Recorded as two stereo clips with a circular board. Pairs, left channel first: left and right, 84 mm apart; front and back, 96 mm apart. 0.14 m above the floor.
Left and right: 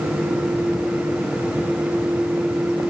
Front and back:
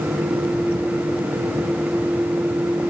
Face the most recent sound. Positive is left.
No sound to turn to.